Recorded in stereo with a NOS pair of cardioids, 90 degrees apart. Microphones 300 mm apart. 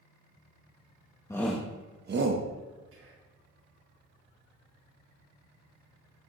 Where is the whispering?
45° right, 1.8 m.